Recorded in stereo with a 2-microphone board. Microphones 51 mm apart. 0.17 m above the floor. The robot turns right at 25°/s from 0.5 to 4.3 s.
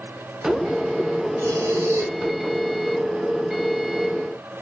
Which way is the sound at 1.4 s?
60° right (ahead or behind).